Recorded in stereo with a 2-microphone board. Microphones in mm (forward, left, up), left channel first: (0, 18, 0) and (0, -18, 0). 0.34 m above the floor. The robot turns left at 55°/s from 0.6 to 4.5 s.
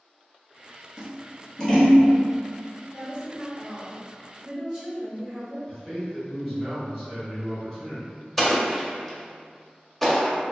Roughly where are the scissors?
Right.